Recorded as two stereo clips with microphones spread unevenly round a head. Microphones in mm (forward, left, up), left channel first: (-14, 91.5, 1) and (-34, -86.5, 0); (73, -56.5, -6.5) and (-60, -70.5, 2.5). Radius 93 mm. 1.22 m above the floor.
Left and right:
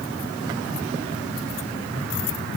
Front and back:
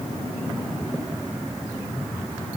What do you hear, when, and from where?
Only background noise.